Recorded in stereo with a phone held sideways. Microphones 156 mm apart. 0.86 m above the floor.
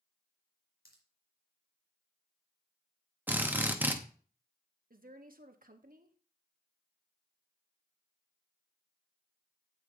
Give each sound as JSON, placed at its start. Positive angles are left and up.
{"t": 0.8, "sound": "a pop", "side_deg": 75, "distance_m": 3.0}
{"t": 3.3, "sound": "a drill", "side_deg": -10, "distance_m": 0.9}
{"t": 4.9, "sound": "a woman speaking", "side_deg": -65, "distance_m": 1.1}